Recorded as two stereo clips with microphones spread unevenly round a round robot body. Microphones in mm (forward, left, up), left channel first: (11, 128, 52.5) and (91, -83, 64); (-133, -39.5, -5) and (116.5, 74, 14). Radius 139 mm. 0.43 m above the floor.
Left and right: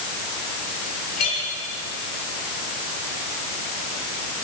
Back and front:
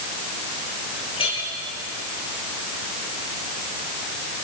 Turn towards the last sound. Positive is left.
turn(degrees=135)